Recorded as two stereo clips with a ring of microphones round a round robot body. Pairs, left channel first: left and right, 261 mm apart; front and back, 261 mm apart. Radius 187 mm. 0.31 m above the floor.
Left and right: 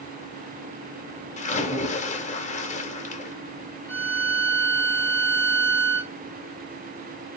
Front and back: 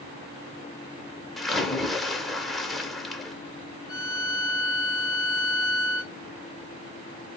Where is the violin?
90° right, 0.8 m.